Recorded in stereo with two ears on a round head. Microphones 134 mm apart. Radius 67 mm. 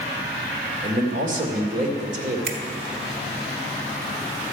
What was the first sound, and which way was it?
A man speaking, 55° right (ahead or behind).